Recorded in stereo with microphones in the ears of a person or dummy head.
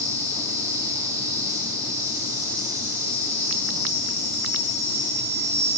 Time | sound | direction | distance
0.0 | an insect | 15° right (ahead or behind) | 1.7 m